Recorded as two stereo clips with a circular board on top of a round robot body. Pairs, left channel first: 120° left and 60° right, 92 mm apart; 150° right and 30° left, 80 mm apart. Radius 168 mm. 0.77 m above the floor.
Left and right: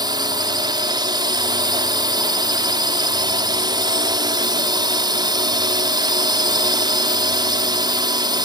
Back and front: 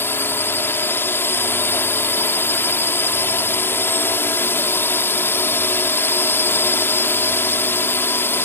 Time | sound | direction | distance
0.0 | a drone | 90° right | ?